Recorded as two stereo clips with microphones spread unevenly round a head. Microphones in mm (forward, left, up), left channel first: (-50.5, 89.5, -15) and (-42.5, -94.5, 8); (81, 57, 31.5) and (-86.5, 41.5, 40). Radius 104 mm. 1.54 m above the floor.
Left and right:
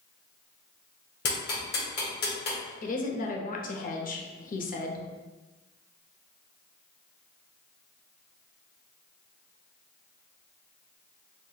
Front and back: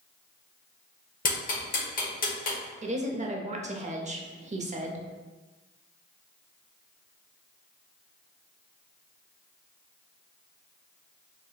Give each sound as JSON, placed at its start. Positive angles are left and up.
{"t": 1.2, "sound": "ticking", "azimuth_deg": 45, "distance_m": 1.3}
{"t": 2.8, "sound": "a woman speaking", "azimuth_deg": 135, "distance_m": 0.6}